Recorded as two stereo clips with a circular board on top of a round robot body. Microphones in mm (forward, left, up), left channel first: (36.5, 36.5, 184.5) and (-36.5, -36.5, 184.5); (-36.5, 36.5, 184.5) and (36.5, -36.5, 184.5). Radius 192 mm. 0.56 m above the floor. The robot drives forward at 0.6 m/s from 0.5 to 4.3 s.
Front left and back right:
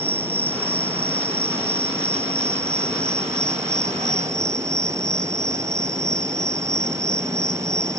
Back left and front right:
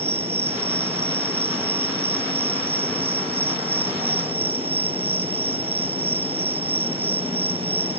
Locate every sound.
0.0 s an insect: 65° right; by 8.0 s 75° right